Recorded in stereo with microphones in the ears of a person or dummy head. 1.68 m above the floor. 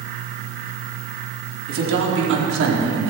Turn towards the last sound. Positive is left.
turn(degrees=-70)  # may be behind; listen again after turning